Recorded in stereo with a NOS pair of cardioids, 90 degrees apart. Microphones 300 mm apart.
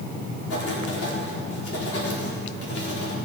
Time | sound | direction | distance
0.5 | writing | 50° left | 4.5 m